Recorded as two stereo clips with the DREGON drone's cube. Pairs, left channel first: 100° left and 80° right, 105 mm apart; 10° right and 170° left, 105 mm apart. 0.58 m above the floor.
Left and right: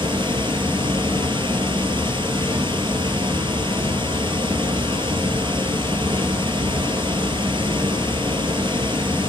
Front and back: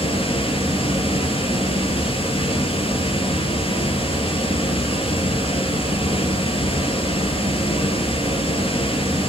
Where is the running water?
40° right, 2.5 m.